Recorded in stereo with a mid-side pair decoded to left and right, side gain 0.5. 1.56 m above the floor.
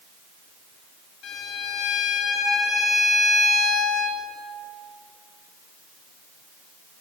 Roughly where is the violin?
Ahead left.